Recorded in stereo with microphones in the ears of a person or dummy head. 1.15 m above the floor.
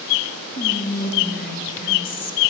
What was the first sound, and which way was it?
Whispering, 50° left (ahead or behind).